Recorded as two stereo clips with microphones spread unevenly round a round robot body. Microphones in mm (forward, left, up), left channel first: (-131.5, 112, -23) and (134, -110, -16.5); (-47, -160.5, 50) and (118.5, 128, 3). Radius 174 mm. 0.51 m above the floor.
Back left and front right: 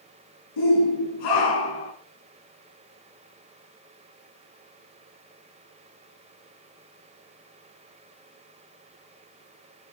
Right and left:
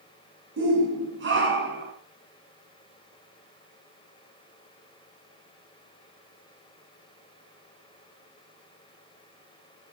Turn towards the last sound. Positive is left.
turn(degrees=120)